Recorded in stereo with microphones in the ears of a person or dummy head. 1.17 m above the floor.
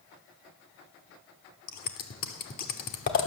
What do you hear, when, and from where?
1.7 s scissors: 45° left (ahead or behind), 1.1 m